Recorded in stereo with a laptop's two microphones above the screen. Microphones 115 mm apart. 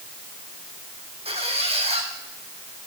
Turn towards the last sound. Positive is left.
turn(degrees=-60)  # may be behind; listen again after turning